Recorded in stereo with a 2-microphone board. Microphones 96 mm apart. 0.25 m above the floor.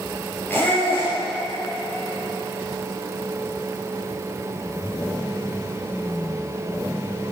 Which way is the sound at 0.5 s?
20° left (ahead or behind).